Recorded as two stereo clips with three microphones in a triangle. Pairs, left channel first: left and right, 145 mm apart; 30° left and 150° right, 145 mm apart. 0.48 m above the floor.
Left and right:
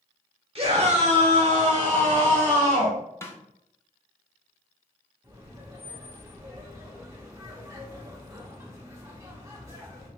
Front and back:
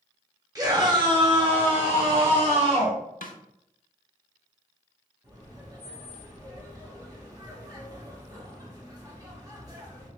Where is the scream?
100° right, 1.1 m; by 3.0 s 110° right, 2.5 m.